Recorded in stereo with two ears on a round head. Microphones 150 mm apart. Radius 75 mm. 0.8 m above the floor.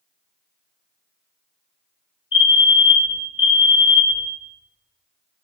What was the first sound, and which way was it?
A fire alarm, 30° left (ahead or behind).